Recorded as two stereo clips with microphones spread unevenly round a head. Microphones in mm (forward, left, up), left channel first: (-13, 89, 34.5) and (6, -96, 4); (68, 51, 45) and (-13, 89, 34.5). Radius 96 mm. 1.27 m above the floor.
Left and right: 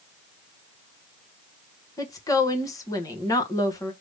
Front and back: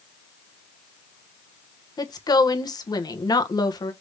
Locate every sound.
2.0 s a woman speaking: 20° left, 1.1 m